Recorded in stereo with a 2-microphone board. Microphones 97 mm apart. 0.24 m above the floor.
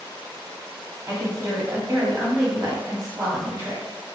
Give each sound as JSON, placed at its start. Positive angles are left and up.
{"t": 1.1, "sound": "a woman speaking", "side_deg": -30, "distance_m": 1.7}